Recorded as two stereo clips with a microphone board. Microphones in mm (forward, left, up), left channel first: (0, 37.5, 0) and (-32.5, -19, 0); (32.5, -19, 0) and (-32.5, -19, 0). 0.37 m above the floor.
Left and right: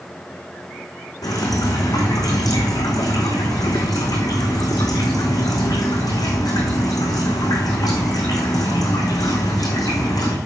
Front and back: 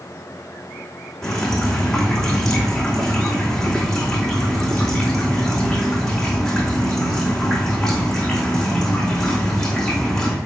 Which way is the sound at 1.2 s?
80° left.